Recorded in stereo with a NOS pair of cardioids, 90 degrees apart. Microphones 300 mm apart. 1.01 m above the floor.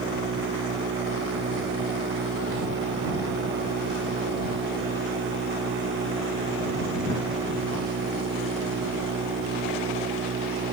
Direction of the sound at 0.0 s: 40° right.